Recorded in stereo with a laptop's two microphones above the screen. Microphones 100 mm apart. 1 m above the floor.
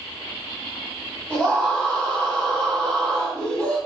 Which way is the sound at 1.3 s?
10° left (ahead or behind).